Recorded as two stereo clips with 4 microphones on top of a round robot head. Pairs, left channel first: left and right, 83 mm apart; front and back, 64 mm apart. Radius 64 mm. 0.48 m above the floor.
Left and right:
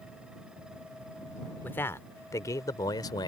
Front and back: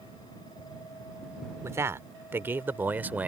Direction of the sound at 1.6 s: 150° left.